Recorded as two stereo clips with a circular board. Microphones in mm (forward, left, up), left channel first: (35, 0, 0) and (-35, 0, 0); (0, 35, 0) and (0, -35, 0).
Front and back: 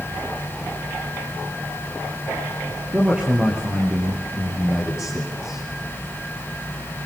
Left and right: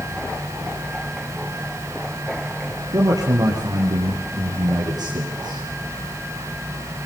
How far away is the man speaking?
About 3 m.